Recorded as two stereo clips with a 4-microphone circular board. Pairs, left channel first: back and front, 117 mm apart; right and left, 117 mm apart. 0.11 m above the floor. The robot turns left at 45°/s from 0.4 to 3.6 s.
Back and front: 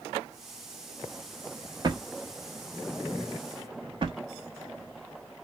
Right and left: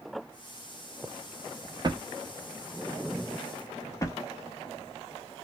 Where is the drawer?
45° left, 0.6 m; by 4.2 s 35° right, 0.6 m.